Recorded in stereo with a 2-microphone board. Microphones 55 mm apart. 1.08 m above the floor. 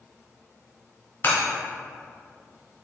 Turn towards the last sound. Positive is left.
turn(degrees=50)  # may be behind; listen again after turning